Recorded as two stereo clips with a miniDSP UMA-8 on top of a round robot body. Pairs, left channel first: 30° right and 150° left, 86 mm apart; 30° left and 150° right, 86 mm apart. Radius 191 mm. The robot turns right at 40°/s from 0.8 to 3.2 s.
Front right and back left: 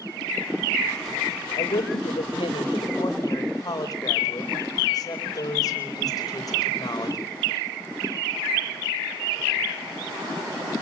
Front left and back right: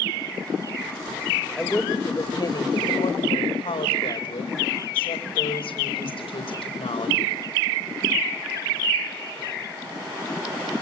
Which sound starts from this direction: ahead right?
A woman speaking, at 1.6 s.